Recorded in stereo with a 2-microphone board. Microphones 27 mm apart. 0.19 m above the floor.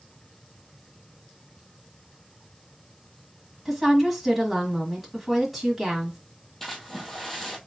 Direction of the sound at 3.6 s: 5° right (ahead or behind).